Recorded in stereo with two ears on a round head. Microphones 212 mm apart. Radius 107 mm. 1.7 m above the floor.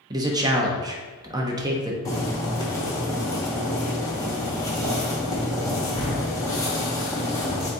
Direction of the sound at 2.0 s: 15° left (ahead or behind).